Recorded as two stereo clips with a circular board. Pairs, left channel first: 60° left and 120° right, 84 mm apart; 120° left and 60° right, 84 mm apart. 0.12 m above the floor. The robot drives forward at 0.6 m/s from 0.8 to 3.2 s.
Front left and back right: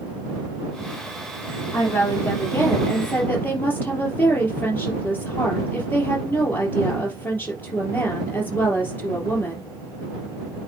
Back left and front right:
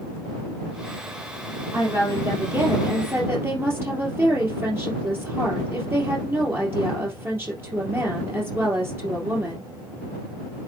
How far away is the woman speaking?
About 4 m.